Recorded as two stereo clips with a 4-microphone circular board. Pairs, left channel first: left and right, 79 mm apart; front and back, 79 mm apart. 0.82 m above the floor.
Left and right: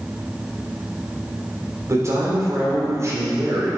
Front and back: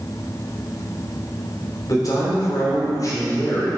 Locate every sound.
1.9 s a man speaking: 40° right, 3 m